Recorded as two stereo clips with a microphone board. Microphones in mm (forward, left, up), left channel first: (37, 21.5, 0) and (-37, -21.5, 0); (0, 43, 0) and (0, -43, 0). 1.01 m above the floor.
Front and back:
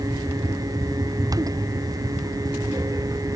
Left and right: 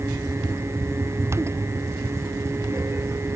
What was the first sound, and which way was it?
Only background noise.